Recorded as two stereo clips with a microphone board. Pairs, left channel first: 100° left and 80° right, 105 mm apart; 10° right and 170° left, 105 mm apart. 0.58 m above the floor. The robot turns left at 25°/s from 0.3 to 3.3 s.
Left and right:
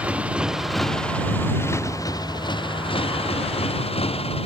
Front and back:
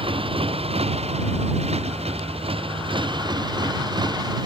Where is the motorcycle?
160° right; by 4.5 s 125° left.